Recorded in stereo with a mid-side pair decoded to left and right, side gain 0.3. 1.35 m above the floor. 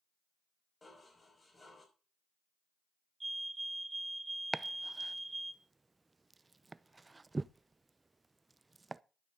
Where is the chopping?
35° right, 0.6 m.